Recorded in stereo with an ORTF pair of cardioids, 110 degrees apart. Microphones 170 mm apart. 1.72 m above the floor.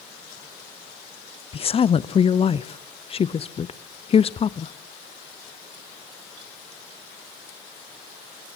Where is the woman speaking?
35° left, 0.9 m.